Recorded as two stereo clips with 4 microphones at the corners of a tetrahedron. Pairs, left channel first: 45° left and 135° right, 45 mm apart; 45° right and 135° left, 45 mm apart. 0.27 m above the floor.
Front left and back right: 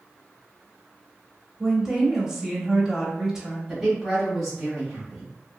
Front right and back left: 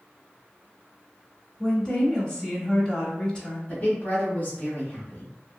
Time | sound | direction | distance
1.6 | a woman speaking | 65° right | 1.0 m
3.7 | a woman speaking | 60° right | 1.2 m